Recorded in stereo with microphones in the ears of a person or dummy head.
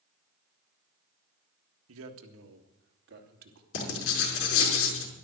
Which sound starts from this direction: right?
A man speaking, at 1.9 s.